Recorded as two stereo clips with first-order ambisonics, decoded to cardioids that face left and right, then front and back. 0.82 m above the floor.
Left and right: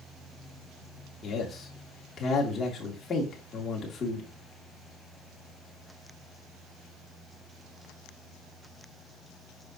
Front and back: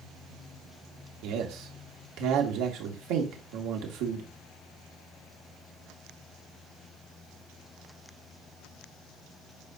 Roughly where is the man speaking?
Behind.